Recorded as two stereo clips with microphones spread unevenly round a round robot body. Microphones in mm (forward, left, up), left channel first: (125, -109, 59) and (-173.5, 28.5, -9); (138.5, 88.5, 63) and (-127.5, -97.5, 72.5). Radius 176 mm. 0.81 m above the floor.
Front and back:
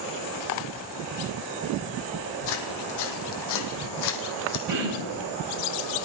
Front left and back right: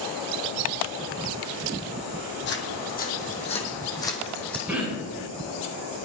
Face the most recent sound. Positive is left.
turn(degrees=130)